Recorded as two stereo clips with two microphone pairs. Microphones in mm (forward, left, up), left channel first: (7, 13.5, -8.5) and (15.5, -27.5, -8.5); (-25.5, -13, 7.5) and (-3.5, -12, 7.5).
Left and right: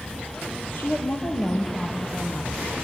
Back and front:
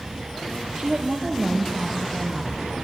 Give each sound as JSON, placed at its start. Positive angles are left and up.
{"t": 0.8, "sound": "a woman speaking", "azimuth_deg": 70, "distance_m": 4.5}